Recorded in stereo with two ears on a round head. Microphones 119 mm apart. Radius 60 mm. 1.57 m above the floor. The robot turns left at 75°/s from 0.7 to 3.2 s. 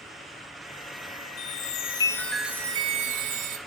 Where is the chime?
75° left, 0.7 m; by 3.6 s 60° right, 0.7 m.